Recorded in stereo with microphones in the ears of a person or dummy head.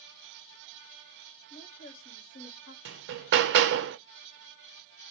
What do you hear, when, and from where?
1.5 s a woman speaking: 60° left (ahead or behind), 1.9 m; by 2.8 s 55° left (ahead or behind), 1.2 m
2.9 s hammering: 65° right (ahead or behind), 0.6 m